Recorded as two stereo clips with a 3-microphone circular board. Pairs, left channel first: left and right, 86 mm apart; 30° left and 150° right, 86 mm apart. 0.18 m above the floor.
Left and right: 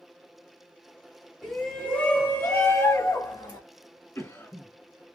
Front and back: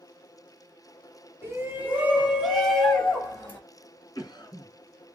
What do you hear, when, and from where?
1.4 s a shout: 175° left, 1.4 m; by 3.6 s 95° left, 1.6 m
4.2 s a cough: 40° left, 1.6 m